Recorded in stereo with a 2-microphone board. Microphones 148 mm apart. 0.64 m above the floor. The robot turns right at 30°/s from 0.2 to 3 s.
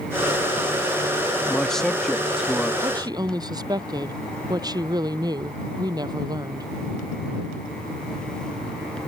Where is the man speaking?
5° left (ahead or behind); by 2.7 s 5° right (ahead or behind).